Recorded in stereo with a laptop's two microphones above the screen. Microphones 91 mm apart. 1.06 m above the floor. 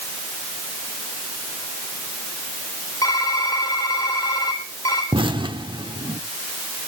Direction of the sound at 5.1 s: 65° right (ahead or behind).